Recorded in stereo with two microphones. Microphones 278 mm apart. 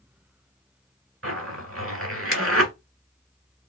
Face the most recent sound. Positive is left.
turn(degrees=-55)  # may be behind; listen again after turning